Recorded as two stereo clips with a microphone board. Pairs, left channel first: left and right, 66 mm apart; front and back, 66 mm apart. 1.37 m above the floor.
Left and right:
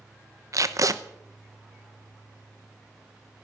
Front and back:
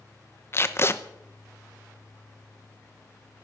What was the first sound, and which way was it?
Tape being pulled, 55° right.